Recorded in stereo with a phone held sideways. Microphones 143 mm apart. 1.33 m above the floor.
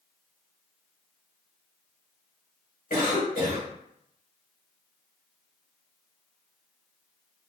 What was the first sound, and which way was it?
A cough, 75° left (ahead or behind).